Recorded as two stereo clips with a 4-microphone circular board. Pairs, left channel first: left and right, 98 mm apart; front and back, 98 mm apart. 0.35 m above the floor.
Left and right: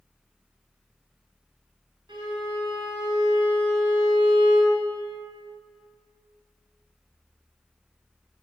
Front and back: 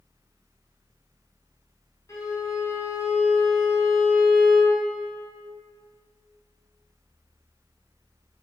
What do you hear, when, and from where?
2.1 s a violin: 50° right, 3 m